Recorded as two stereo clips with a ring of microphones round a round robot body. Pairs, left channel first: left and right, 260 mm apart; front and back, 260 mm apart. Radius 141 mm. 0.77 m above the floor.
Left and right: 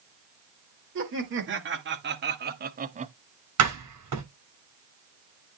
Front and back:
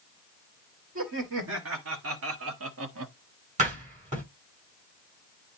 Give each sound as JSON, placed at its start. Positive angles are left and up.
{"t": 0.9, "sound": "laughter", "azimuth_deg": -135, "distance_m": 2.5}
{"t": 3.6, "sound": "a door slam", "azimuth_deg": -115, "distance_m": 6.5}